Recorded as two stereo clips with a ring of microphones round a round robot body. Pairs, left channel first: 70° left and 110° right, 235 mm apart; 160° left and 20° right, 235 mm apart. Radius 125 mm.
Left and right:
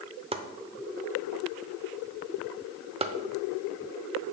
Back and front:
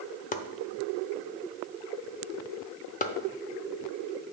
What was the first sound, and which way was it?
Chopping, 165° right.